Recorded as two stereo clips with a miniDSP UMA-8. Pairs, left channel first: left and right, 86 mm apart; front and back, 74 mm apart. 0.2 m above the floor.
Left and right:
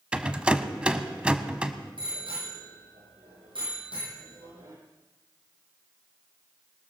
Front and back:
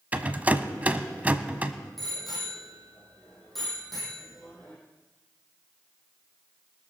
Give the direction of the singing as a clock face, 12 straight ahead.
I don't hear singing.